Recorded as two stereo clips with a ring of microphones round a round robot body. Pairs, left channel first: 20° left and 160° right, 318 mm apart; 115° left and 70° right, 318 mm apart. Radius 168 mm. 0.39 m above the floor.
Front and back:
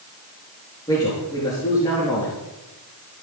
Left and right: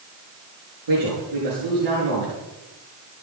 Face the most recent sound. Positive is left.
turn(degrees=-55)